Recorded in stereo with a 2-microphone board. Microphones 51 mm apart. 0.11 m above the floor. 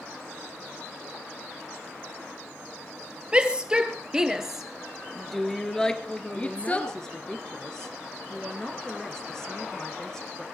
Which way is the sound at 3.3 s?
20° right (ahead or behind).